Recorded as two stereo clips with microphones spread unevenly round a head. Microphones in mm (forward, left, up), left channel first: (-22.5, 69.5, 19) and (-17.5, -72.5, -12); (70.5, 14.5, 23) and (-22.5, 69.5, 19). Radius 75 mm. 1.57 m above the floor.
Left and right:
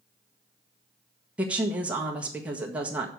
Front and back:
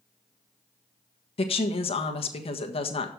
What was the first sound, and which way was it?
A woman speaking, 5° right.